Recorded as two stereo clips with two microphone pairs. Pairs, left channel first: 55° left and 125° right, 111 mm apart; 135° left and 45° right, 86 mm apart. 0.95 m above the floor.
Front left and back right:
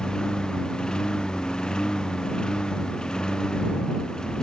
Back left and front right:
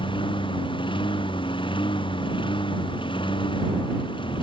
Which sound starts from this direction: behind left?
A lawn mower, at 0.0 s.